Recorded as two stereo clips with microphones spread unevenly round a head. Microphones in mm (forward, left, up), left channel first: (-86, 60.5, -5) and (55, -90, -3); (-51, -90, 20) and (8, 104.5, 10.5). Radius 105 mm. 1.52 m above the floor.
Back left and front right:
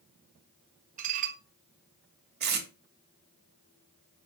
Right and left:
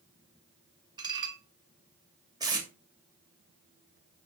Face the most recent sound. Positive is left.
turn(degrees=0)